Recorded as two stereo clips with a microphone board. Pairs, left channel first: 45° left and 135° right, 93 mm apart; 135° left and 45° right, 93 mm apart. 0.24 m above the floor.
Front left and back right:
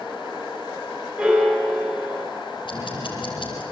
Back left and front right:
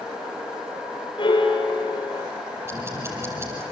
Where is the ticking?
15° left, 5 m.